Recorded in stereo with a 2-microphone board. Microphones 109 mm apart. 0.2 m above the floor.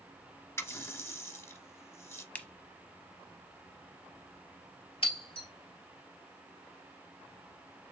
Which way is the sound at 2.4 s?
15° left (ahead or behind).